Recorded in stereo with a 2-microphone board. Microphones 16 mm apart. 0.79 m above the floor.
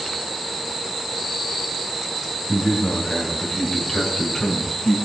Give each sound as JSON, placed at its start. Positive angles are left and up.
{"t": 2.5, "sound": "a man speaking", "side_deg": 5, "distance_m": 5.0}